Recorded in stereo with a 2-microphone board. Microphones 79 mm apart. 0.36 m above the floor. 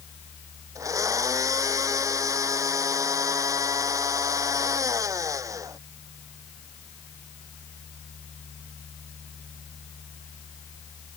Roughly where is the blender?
Right.